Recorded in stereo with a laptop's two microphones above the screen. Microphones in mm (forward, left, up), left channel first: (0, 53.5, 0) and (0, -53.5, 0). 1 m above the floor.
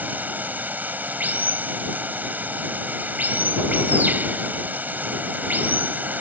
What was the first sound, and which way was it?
Running water, 15° right (ahead or behind).